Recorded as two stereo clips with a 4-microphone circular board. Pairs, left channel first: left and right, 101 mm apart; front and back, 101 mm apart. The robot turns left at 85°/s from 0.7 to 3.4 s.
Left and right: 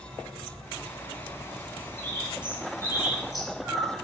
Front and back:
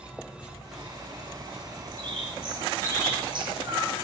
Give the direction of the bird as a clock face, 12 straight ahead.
2 o'clock.